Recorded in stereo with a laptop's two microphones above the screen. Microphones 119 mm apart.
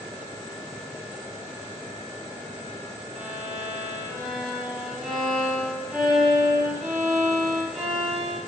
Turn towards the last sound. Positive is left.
turn(degrees=0)  # may be behind; listen again after turning